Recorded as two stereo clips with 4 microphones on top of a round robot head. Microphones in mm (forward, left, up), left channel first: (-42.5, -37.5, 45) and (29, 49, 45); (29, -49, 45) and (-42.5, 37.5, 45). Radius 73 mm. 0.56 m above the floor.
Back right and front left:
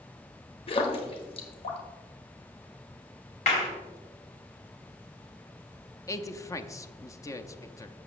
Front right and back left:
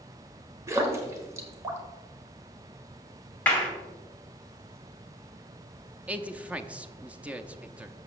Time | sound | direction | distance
0.7 | a splash | 165° right | 1.5 m
3.5 | a clap | 125° right | 2.5 m
6.1 | a man speaking | 160° right | 0.7 m